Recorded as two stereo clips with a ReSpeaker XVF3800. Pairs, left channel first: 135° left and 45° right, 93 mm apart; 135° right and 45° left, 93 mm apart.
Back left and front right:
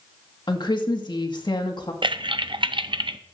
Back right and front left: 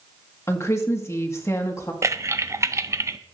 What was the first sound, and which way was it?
A woman speaking, 170° left.